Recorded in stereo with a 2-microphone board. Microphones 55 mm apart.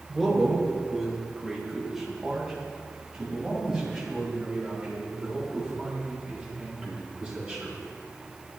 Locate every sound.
0.1 s a man speaking: 5° left (ahead or behind), 4 m; by 7.7 s 15° right (ahead or behind), 13 m